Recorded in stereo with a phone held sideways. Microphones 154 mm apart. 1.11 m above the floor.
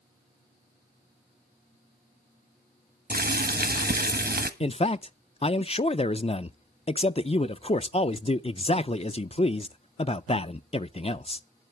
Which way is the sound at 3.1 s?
85° right.